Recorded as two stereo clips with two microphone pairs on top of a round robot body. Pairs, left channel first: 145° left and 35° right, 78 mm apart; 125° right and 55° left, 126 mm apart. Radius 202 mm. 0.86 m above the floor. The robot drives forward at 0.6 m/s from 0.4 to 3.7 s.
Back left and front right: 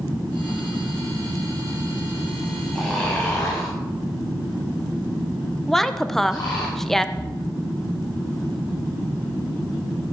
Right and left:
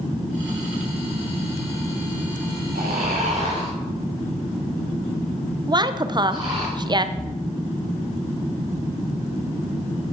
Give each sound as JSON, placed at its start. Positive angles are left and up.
{"t": 2.8, "sound": "snoring", "azimuth_deg": 60, "distance_m": 1.0}
{"t": 5.7, "sound": "a woman speaking", "azimuth_deg": 65, "distance_m": 0.7}
{"t": 7.2, "sound": "a splash", "azimuth_deg": 125, "distance_m": 0.6}